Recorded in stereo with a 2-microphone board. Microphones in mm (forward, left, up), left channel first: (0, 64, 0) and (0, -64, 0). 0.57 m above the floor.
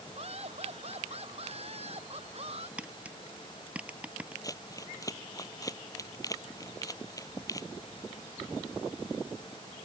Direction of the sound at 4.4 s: 25° left (ahead or behind).